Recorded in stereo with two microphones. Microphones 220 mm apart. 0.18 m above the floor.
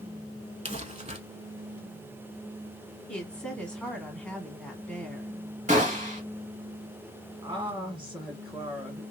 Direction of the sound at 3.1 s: 5° left (ahead or behind).